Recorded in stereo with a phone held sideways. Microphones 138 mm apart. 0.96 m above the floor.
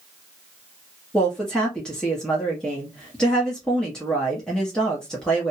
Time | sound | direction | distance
1.1 | a woman speaking | 5° left (ahead or behind) | 1.3 m